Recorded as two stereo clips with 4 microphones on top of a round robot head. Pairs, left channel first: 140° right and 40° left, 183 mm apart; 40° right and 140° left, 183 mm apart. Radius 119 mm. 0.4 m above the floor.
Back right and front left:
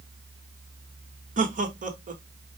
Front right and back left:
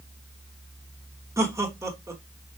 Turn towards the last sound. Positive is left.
turn(degrees=70)